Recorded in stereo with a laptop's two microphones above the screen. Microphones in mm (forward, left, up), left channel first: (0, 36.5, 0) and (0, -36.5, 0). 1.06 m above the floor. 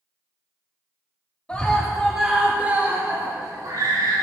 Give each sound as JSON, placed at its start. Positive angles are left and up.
{"t": 1.5, "sound": "a scream", "side_deg": 15, "distance_m": 2.5}